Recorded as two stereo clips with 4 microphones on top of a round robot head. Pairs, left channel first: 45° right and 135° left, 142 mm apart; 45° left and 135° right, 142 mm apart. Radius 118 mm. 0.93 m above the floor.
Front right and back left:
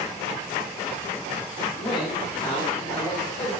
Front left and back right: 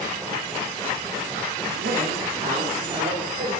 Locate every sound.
1.8 s a man speaking: 110° right, 2.5 m; by 3.6 s 100° right, 4 m